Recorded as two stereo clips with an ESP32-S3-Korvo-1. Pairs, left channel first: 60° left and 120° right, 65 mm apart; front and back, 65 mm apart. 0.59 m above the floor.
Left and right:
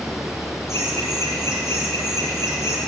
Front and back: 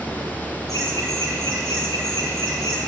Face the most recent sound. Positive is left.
turn(degrees=20)